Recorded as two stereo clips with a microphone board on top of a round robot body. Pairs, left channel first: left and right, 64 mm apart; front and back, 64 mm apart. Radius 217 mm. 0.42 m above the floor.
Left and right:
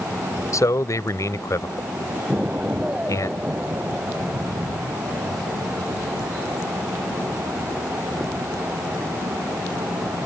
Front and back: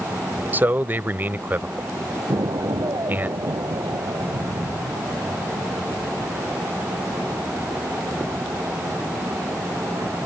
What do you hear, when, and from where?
0.5 s a man speaking: 120° left
2.3 s an explosion: 160° right